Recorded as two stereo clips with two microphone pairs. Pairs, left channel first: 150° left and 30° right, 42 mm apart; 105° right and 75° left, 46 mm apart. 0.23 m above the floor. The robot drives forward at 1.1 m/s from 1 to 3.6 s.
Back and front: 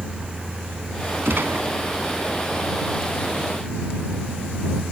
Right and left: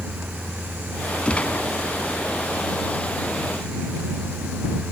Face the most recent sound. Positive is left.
turn(degrees=-170)